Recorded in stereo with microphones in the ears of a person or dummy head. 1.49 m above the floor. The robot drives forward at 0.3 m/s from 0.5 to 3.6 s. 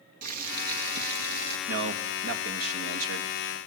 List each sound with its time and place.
0.2 s boiling: 55° right (ahead or behind), 2.0 m; by 1.6 s 60° right (ahead or behind), 1.8 m
1.7 s a man speaking: 80° right, 1.7 m; by 3.6 s 75° right (ahead or behind), 1.8 m